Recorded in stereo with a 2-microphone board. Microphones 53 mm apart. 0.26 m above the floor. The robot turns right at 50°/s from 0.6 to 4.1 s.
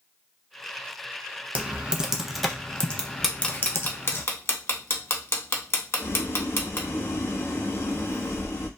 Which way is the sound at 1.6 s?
25° right (ahead or behind).